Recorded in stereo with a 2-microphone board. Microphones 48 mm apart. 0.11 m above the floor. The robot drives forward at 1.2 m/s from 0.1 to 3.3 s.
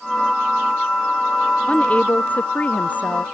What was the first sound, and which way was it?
A woman speaking, 30° left (ahead or behind).